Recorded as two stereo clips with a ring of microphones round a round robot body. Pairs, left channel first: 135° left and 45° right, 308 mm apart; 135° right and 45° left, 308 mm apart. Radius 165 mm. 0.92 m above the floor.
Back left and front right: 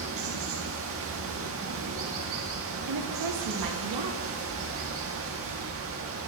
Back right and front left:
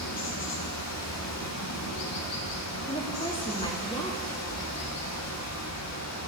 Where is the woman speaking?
60° right, 1.7 m.